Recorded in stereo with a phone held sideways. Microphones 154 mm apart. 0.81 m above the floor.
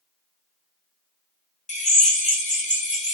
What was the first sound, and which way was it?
A drill, 50° left (ahead or behind).